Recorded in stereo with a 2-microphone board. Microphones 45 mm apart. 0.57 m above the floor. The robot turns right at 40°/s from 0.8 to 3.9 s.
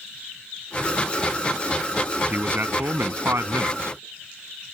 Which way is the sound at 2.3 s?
140° right.